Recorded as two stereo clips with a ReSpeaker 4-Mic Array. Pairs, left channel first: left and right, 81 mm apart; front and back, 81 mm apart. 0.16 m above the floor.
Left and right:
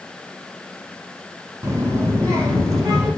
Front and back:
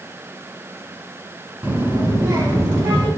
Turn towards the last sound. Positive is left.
turn(degrees=-135)